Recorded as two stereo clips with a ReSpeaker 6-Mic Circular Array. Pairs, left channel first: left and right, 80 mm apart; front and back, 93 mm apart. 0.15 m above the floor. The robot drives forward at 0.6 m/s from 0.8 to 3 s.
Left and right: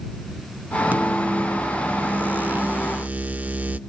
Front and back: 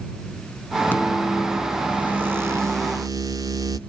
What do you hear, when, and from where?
0.9 s a microwave: 50° right, 1.0 m; by 3.8 s 155° right, 1.3 m